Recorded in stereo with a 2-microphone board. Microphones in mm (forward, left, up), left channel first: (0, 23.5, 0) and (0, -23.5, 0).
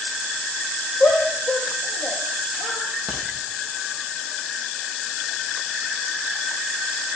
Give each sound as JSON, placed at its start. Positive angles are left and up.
{"t": 1.0, "sound": "a shout", "side_deg": 20, "distance_m": 5.0}
{"t": 3.1, "sound": "a crack", "side_deg": 0, "distance_m": 5.5}